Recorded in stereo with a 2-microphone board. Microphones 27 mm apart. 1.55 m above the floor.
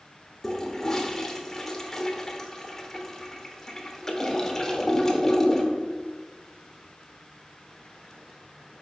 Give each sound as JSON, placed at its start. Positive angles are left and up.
{"t": 0.4, "sound": "a toilet flushing", "side_deg": 20, "distance_m": 1.0}